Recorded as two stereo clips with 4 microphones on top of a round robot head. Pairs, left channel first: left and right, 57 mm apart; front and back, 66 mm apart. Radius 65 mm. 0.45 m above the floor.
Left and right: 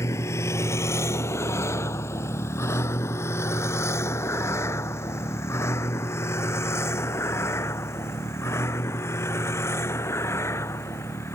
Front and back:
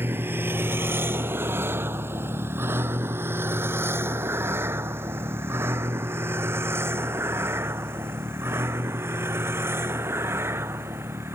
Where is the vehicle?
125° left; by 11.4 s 130° left.